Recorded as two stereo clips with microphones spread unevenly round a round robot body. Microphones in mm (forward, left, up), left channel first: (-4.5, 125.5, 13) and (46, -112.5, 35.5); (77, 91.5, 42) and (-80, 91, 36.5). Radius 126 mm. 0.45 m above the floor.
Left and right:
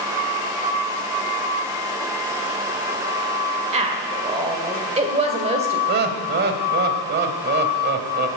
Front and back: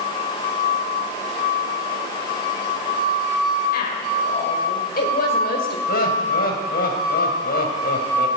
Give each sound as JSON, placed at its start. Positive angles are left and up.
{"t": 3.7, "sound": "a woman speaking", "azimuth_deg": -15, "distance_m": 2.0}
{"t": 5.9, "sound": "laughter", "azimuth_deg": -30, "distance_m": 2.5}